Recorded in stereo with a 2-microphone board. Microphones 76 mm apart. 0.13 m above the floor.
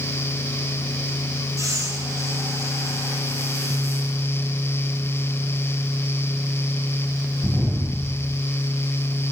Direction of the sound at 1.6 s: 45° right (ahead or behind).